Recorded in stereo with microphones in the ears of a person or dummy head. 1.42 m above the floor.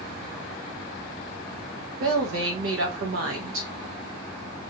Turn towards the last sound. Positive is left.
turn(degrees=-75)  # may be behind; listen again after turning